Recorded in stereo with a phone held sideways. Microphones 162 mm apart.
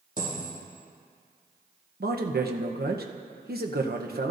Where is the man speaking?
75° right (ahead or behind), 0.9 m.